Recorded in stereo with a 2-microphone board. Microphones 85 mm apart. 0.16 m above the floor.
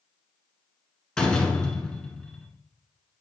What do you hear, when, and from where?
1.2 s a door slam: 10° left (ahead or behind), 1.2 m